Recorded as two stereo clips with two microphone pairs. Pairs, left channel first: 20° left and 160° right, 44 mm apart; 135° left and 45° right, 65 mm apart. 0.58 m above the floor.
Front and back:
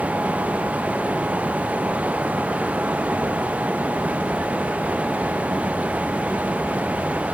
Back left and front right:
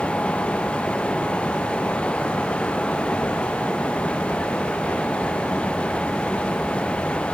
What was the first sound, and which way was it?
Only background noise.